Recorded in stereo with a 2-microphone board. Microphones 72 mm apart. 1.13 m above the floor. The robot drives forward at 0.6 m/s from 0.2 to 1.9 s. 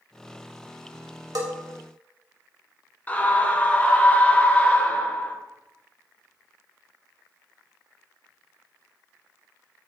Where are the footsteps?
I don't hear footsteps.